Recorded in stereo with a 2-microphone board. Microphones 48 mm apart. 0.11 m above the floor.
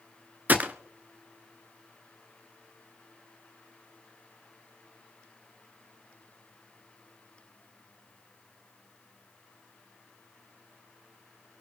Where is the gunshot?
35° right (ahead or behind), 0.9 m.